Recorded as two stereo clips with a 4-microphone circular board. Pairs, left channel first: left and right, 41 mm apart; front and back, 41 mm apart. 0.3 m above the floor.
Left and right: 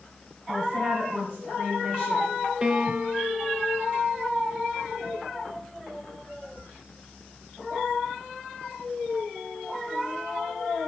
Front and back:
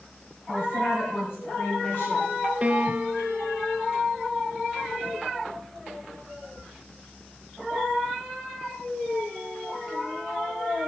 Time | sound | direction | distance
0.5 | a woman speaking | straight ahead | 1.9 m
2.6 | a piano | 140° right | 0.8 m